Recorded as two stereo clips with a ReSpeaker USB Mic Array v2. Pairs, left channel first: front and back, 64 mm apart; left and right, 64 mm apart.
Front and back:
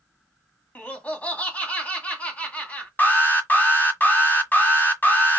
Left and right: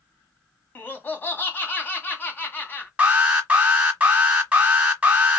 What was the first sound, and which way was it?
Laughter, 50° left.